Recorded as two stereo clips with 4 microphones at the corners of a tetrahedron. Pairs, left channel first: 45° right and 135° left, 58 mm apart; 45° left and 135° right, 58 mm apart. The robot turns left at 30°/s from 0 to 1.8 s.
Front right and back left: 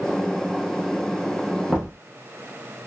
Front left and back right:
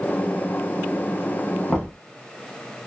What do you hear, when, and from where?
1.7 s knocking: 95° left, 1.1 m; by 1.9 s 90° left, 1.1 m